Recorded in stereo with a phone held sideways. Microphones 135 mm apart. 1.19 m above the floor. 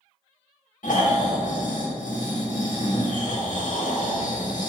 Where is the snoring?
75° left (ahead or behind), 1.9 m.